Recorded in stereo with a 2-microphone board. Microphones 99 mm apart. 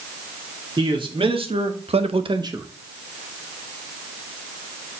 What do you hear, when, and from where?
0.8 s a man speaking: 55° right (ahead or behind), 2.5 m; by 2.7 s 25° right (ahead or behind), 0.9 m